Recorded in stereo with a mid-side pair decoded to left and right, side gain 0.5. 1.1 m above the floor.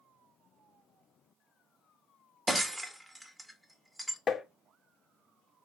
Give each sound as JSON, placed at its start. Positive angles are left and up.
{"t": 2.5, "sound": "breaking glass", "azimuth_deg": -10, "distance_m": 1.3}
{"t": 4.3, "sound": "tapping", "azimuth_deg": 35, "distance_m": 0.8}